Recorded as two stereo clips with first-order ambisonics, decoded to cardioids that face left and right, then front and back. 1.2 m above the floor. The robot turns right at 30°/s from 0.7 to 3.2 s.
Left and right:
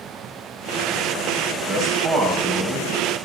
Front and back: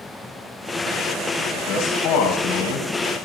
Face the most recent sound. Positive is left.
turn(degrees=5)